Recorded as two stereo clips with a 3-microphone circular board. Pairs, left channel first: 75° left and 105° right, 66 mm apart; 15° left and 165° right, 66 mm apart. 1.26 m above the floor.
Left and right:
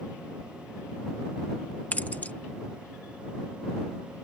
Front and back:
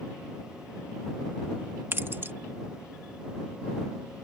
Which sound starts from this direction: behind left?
Keys jangling, at 1.9 s.